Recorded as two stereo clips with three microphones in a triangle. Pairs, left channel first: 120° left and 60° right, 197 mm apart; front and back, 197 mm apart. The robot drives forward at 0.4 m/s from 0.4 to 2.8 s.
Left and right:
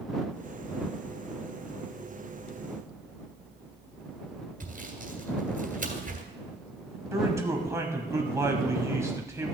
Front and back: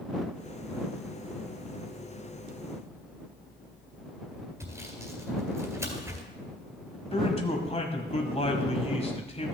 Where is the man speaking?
Straight ahead, 1.2 m.